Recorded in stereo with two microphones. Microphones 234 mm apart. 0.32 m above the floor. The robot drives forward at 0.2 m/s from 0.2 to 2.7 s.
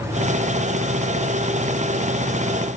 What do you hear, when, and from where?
Only background noise.